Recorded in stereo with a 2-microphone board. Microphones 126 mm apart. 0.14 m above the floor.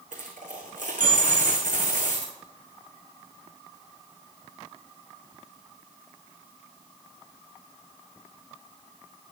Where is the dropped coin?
85° right, 3 m.